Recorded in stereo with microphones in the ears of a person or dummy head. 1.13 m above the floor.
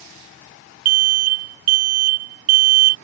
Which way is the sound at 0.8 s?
45° right (ahead or behind).